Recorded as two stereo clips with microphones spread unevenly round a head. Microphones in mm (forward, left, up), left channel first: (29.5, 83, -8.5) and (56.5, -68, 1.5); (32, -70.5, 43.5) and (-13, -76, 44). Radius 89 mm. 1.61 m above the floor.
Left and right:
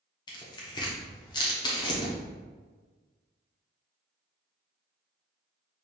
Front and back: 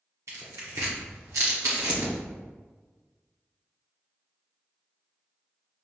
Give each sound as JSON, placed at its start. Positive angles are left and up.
{"t": 0.3, "sound": "tearing paper", "azimuth_deg": 165, "distance_m": 0.7}